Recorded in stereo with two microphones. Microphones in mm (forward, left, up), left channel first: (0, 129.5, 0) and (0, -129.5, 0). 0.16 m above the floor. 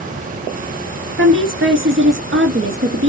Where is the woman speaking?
50° right (ahead or behind), 2 m.